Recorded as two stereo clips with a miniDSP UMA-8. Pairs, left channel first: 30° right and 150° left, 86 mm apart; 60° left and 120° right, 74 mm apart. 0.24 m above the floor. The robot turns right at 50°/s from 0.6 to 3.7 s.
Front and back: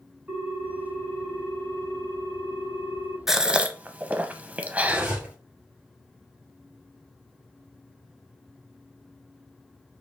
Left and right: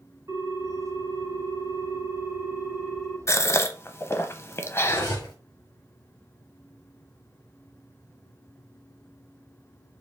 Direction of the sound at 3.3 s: 65° left.